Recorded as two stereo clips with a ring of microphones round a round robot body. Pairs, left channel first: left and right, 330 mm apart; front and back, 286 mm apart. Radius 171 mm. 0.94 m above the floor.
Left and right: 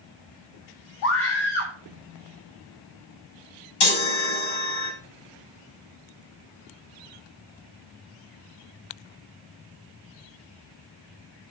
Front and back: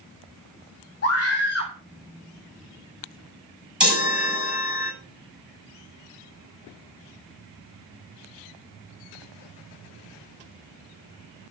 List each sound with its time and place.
1.0 s a scream: 55° left, 2.5 m
3.8 s a chime: 95° left, 5.5 m